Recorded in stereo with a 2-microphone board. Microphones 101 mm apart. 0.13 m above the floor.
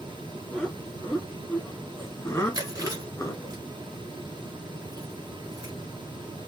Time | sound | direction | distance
0.5 | laughter | 5° left (ahead or behind) | 1.8 m
2.5 | chewing | 35° right (ahead or behind) | 2 m